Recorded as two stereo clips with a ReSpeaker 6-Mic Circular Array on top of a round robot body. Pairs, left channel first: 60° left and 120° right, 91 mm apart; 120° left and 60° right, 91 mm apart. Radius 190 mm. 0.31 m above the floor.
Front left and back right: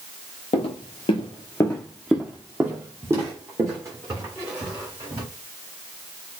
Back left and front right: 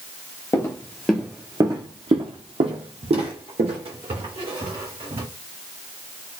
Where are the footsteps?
65° left, 0.7 m; by 5.2 s 70° right, 2.5 m.